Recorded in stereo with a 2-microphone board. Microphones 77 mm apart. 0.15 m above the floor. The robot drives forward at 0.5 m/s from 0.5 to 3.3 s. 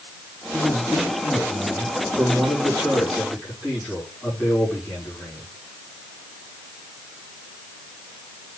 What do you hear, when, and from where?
0.5 s a man speaking: 30° left (ahead or behind), 4.5 m; by 5.5 s 25° left (ahead or behind), 5.5 m